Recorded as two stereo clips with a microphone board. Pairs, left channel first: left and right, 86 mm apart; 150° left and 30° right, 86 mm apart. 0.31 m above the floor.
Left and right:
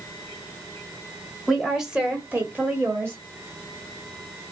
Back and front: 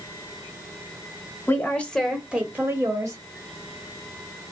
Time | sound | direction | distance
1.5 | a woman speaking | 175° left | 1.4 m